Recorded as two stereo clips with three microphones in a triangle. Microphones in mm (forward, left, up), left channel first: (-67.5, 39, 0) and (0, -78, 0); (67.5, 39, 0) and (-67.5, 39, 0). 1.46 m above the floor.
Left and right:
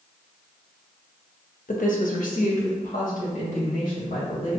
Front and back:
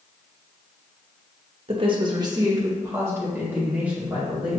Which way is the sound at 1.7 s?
135° left.